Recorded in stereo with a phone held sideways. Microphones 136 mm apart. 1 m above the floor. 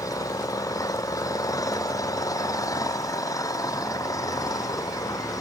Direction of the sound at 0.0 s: 25° left (ahead or behind).